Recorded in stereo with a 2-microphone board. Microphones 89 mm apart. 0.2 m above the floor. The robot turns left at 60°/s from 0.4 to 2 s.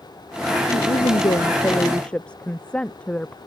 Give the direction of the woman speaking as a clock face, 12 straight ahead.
9 o'clock.